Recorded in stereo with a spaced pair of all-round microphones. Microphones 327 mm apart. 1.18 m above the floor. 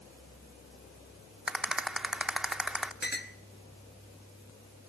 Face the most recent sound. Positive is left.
turn(degrees=30)  # may be behind; listen again after turning